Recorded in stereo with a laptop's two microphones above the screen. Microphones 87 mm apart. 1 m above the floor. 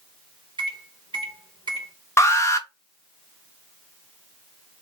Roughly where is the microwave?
Right.